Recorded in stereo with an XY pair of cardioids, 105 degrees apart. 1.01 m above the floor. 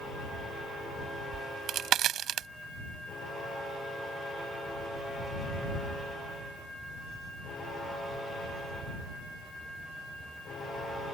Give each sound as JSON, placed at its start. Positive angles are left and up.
{"t": 1.3, "sound": "a crack", "azimuth_deg": -70}